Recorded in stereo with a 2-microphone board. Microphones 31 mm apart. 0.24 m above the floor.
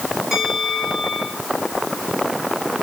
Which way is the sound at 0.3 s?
10° right (ahead or behind).